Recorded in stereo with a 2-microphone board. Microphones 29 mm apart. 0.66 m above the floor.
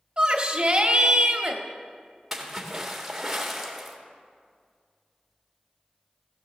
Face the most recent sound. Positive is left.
turn(degrees=-5)  # may be behind; listen again after turning